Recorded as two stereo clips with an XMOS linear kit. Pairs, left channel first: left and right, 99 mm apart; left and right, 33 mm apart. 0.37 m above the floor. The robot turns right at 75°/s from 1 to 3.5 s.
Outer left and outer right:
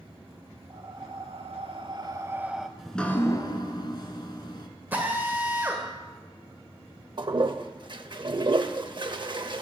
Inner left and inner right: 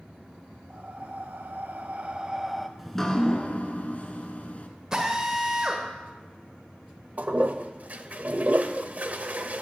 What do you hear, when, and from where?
0.7 s breathing: 125° right, 0.6 m; by 2.7 s straight ahead, 0.6 m
2.8 s dripping: 5° right, 0.9 m; by 4.7 s 50° left, 0.9 m
4.9 s a drill: 20° right (ahead or behind), 1.6 m
7.2 s a toilet flushing: 50° right (ahead or behind), 0.6 m